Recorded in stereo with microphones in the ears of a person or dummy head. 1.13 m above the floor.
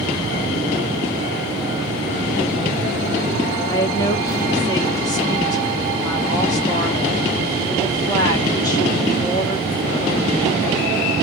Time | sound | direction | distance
3.7 | a woman speaking | 25° left (ahead or behind) | 1.1 m